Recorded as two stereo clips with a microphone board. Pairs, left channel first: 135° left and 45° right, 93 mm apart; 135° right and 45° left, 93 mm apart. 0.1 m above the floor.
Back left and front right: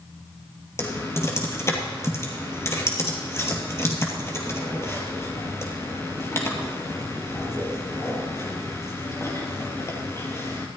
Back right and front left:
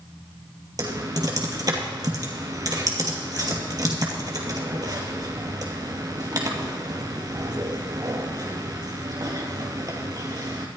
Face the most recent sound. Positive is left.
turn(degrees=80)